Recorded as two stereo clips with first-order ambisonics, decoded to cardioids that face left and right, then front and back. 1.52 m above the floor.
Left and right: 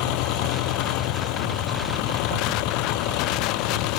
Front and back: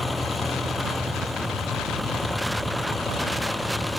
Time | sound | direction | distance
0.0 | an engine running | 85° left | ?